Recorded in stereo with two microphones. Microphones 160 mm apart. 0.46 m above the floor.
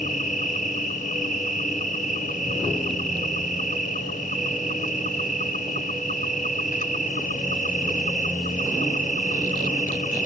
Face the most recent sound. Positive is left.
turn(degrees=60)  # may be behind; listen again after turning